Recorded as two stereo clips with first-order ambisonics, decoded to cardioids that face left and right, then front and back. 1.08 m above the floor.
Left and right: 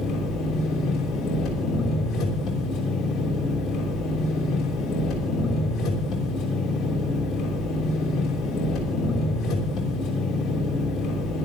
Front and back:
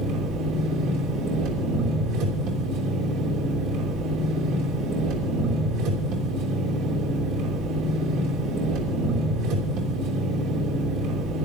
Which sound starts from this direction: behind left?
An engine running, at 0.0 s.